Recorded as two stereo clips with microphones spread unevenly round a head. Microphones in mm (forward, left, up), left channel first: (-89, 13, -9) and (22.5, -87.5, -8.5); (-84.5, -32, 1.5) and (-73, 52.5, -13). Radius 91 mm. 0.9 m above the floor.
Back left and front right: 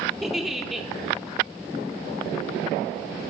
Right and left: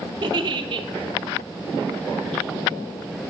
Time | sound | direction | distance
0.2 | a giggle | 45° left | 0.6 m